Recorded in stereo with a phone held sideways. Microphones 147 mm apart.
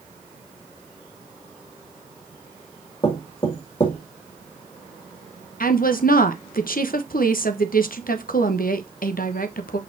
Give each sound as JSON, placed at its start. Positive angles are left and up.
{"t": 3.0, "sound": "knocking", "side_deg": 35, "distance_m": 2.0}
{"t": 5.6, "sound": "a woman speaking", "side_deg": 75, "distance_m": 1.1}